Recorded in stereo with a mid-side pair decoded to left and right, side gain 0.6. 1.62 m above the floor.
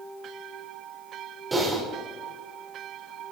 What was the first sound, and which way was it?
Typing on a keyboard, 20° right.